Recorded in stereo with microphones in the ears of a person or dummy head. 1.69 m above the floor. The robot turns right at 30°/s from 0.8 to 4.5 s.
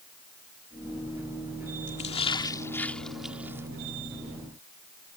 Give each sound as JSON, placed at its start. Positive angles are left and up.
{"t": 1.9, "sound": "a splash", "side_deg": 35}